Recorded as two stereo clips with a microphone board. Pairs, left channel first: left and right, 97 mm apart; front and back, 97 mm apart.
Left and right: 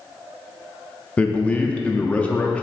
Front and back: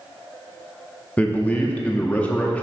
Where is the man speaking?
45° left, 0.6 m.